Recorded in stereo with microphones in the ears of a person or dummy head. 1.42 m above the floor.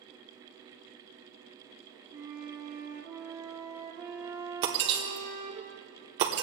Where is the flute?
15° right (ahead or behind), 1.0 m.